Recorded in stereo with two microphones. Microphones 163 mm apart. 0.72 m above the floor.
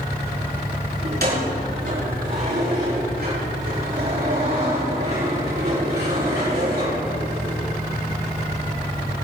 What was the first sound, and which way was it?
Keys jangling, 75° right (ahead or behind).